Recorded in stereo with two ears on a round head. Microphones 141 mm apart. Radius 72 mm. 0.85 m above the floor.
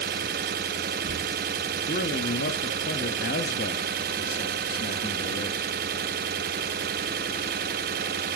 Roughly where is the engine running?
Right.